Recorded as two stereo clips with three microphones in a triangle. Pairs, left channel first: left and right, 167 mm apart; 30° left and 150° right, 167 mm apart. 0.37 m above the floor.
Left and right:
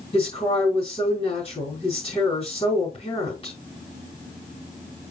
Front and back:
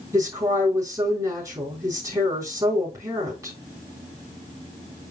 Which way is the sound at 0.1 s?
140° left.